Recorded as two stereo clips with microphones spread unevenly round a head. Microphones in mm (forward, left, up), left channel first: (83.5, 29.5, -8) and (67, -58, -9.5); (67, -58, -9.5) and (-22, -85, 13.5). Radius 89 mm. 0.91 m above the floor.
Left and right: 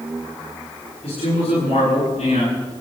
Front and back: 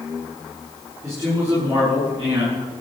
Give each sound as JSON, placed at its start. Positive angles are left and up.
{"t": 1.0, "sound": "a man speaking", "azimuth_deg": 125, "distance_m": 9.5}